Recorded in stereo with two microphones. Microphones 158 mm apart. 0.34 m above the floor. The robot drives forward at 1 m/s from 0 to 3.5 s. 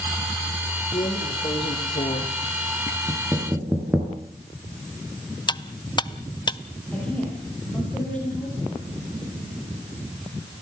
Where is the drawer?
30° left (ahead or behind), 3 m; by 3.0 s 70° left (ahead or behind), 1.8 m.